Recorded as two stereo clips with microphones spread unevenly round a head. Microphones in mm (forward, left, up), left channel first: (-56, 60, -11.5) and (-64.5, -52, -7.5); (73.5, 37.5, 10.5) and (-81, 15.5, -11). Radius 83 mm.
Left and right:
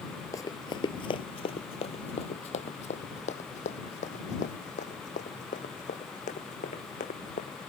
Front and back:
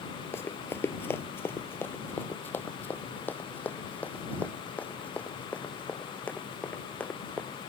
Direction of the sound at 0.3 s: 50° left.